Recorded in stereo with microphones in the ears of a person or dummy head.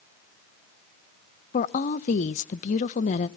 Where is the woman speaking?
40° left (ahead or behind), 0.7 m.